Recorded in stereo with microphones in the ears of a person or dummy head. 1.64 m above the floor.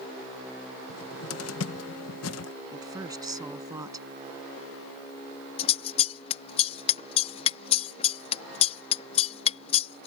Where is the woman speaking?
20° right (ahead or behind).